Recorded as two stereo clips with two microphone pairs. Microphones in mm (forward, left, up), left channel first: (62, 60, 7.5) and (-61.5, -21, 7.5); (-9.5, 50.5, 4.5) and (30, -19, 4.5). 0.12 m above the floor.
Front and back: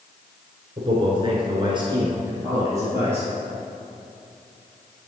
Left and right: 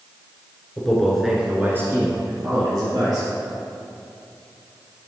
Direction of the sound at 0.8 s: 170° right.